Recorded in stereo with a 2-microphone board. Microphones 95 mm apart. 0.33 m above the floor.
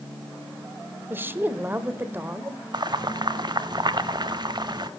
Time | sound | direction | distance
1.1 | a woman speaking | 25° right (ahead or behind) | 1.0 m
2.7 | boiling | 50° right (ahead or behind) | 0.6 m